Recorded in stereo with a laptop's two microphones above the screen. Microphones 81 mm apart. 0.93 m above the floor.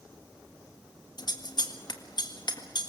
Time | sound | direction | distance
1.2 | scissors | 60° left (ahead or behind) | 1.8 m